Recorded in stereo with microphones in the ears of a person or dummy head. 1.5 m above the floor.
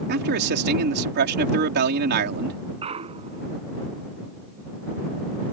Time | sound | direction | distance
0.1 | a man speaking | 60° right (ahead or behind) | ?
2.8 | a clunk | 35° right (ahead or behind) | ?